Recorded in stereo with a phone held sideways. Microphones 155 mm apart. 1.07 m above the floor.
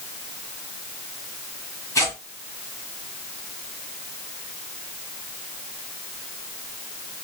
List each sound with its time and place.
1.9 s tearing paper: 20° left (ahead or behind), 1.9 m